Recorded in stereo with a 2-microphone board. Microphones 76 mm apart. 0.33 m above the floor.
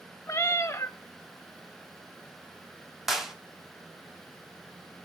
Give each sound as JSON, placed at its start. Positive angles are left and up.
{"t": 0.3, "sound": "a cat meowing", "side_deg": 35, "distance_m": 0.8}
{"t": 3.1, "sound": "a clap", "side_deg": -5, "distance_m": 1.3}